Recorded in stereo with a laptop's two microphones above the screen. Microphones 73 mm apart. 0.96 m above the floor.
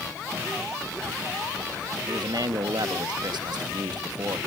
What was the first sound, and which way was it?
A man speaking, 75° right (ahead or behind).